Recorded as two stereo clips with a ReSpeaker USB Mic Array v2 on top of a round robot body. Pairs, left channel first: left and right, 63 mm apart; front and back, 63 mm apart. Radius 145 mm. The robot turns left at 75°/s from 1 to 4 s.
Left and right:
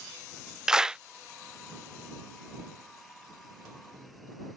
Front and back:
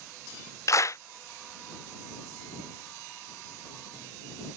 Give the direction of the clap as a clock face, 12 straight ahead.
12 o'clock.